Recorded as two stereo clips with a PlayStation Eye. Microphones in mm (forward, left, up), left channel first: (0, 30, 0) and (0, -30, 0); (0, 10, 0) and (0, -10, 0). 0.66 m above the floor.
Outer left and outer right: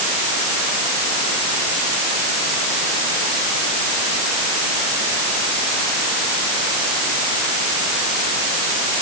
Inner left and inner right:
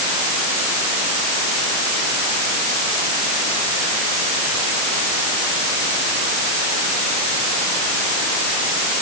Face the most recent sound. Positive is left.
No sound to turn to.